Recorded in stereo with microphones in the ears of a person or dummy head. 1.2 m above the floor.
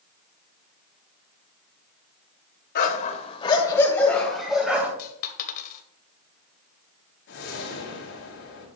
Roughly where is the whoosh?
Left.